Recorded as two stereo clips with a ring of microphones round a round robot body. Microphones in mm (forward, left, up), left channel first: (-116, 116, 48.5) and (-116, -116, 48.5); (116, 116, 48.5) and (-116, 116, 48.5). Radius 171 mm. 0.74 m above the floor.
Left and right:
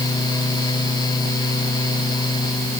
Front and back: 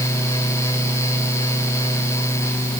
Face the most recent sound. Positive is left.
No sound to turn to.